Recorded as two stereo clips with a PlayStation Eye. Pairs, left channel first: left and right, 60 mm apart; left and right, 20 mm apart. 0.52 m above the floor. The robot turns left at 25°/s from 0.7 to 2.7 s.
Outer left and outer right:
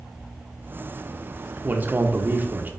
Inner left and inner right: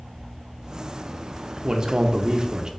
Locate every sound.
1.6 s a man speaking: 35° right (ahead or behind), 0.8 m